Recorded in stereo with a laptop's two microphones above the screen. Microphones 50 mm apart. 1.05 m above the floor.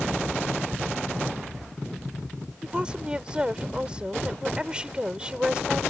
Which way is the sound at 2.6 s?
20° right (ahead or behind).